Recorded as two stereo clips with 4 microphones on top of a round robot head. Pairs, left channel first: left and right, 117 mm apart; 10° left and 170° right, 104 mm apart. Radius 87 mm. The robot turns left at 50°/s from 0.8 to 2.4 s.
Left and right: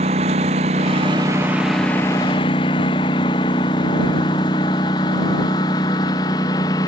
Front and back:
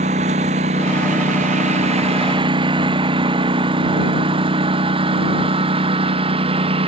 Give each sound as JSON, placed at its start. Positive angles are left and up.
{"t": 0.0, "sound": "a lawn mower", "azimuth_deg": -135}